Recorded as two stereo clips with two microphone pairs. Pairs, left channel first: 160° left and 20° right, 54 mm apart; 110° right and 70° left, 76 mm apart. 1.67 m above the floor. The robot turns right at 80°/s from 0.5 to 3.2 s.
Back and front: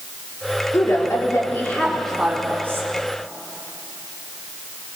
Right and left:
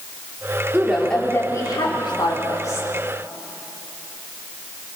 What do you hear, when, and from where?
0.7 s a woman speaking: 140° left, 4 m; by 2.9 s 50° right, 4 m